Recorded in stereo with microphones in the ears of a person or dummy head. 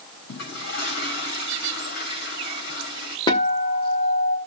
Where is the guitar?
20° left (ahead or behind), 1.6 m.